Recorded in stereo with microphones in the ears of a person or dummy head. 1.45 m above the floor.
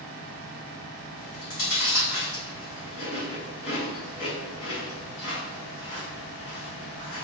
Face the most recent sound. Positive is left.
turn(degrees=45)  # may be behind; listen again after turning